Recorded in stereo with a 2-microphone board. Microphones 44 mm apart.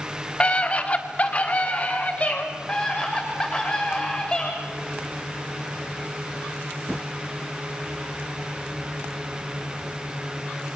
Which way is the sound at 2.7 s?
20° left (ahead or behind).